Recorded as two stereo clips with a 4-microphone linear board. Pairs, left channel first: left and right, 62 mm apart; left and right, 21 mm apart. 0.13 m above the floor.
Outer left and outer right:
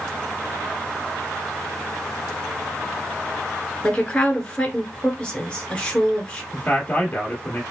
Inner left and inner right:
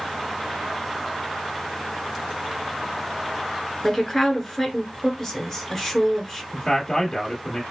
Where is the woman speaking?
15° left (ahead or behind), 1.3 m.